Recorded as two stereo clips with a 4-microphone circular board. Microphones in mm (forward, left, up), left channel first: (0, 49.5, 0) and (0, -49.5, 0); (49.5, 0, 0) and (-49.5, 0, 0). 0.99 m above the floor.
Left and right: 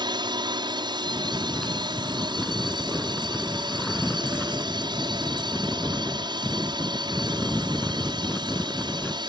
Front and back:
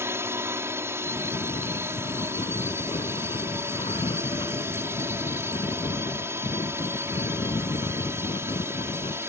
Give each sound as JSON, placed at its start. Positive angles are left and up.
{"t": 0.0, "sound": "a drone", "azimuth_deg": -120}
{"t": 1.0, "sound": "snoring", "azimuth_deg": 5}